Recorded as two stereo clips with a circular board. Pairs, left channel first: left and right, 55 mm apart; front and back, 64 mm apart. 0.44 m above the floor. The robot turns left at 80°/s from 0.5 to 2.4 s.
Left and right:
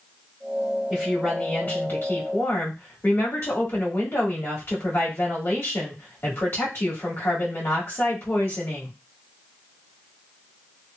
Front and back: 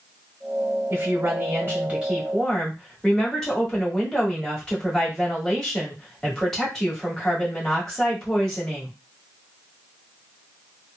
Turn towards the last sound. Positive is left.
turn(degrees=80)